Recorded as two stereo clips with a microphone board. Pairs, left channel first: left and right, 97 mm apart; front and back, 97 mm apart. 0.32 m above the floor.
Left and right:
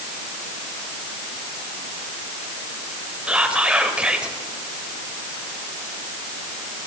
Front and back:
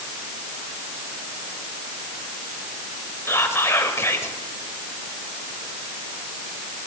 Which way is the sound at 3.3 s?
25° right.